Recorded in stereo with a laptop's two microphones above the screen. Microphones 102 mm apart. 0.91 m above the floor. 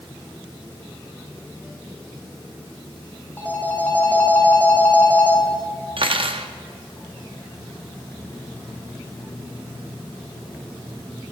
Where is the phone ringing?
20° left (ahead or behind), 1.4 m.